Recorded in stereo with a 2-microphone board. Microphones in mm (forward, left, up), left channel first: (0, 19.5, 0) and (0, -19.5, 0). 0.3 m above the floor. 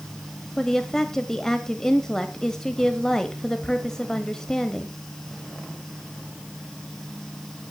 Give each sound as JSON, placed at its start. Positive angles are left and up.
{"t": 0.6, "sound": "a woman speaking", "side_deg": 15, "distance_m": 1.3}